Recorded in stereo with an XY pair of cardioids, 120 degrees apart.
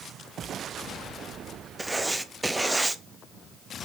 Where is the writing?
10° right, 0.7 m.